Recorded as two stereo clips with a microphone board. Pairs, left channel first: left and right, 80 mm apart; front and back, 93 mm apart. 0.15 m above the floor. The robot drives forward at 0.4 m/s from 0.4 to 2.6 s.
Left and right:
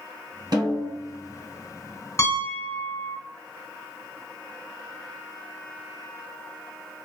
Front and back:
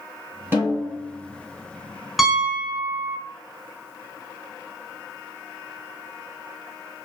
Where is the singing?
No singing in this recording.